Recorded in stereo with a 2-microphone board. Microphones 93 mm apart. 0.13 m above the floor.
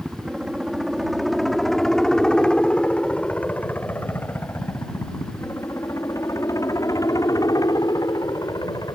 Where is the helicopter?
10° right (ahead or behind); by 9.0 s 45° left (ahead or behind).